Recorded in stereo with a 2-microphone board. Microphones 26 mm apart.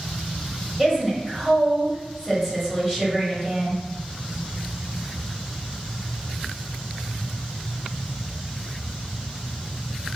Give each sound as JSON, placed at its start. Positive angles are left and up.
{"t": 0.8, "sound": "a woman speaking", "side_deg": -5, "distance_m": 1.2}